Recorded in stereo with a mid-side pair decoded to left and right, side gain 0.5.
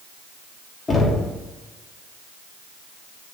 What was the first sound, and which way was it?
Knocking, 30° left.